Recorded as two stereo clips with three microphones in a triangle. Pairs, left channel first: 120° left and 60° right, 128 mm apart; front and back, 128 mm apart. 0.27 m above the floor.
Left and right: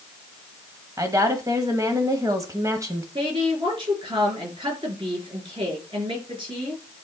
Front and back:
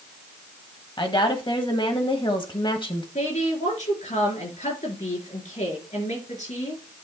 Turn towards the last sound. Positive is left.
turn(degrees=-15)